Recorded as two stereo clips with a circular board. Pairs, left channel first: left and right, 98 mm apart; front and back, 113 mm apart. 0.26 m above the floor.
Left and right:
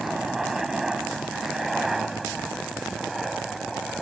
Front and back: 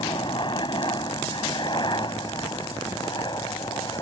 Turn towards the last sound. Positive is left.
turn(degrees=0)